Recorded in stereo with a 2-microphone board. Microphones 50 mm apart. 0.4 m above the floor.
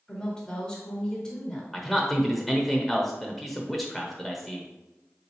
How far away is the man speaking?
About 0.9 m.